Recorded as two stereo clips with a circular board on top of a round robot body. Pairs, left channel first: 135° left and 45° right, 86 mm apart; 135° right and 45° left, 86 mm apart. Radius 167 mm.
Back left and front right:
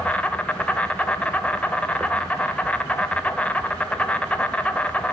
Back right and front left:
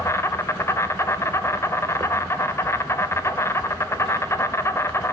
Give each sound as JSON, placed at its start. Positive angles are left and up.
{"t": 0.0, "sound": "an insect", "azimuth_deg": -160, "distance_m": 1.4}